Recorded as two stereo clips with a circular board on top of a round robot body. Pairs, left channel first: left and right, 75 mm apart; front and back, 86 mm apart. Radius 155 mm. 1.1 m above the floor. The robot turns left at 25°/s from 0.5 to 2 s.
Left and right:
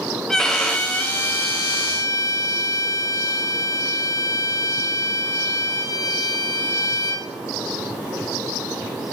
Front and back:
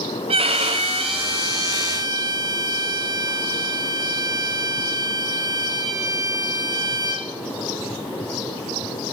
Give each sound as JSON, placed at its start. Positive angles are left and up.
{"t": 0.3, "sound": "a violin", "azimuth_deg": 175, "distance_m": 0.8}